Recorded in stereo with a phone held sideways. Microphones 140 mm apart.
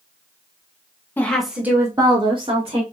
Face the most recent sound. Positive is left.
turn(degrees=-45)  # may be behind; listen again after turning